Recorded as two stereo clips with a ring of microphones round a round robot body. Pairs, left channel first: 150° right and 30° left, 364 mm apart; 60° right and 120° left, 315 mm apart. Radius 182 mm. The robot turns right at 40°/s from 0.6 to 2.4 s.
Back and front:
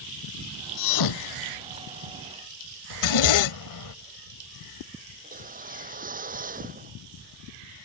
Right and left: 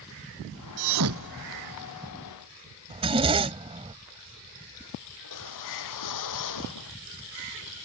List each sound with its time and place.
0.8 s a thud: 160° left; by 1.9 s 155° right
2.9 s a zipper: 170° right
5.2 s a whoosh: 40° right